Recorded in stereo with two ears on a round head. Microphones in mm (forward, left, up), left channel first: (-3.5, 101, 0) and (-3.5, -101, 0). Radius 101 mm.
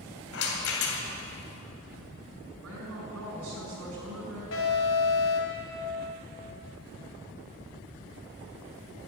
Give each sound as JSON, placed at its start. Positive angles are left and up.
{"t": 0.3, "sound": "a rattle", "side_deg": 65, "distance_m": 2.5}
{"t": 2.6, "sound": "a woman speaking", "side_deg": -75, "distance_m": 6.0}
{"t": 4.5, "sound": "an alarm", "side_deg": 65, "distance_m": 4.0}